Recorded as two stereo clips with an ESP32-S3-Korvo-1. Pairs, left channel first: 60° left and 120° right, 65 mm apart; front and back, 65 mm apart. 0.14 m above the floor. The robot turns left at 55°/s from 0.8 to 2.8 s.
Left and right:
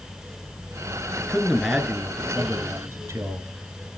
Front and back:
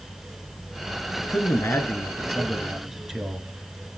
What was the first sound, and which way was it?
A man speaking, 5° right.